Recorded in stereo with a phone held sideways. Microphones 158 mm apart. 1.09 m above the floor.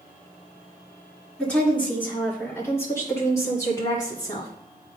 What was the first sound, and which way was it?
A woman speaking, 5° left (ahead or behind).